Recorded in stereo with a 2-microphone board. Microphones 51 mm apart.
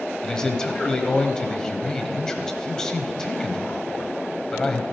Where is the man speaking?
15° left (ahead or behind), 1.1 m.